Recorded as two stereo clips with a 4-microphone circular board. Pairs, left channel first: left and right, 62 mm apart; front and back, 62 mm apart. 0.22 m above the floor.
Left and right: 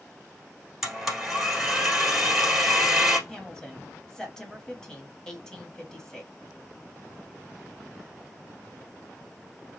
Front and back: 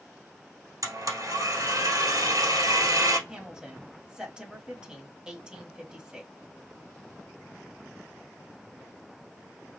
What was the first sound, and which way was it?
A blender, 175° right.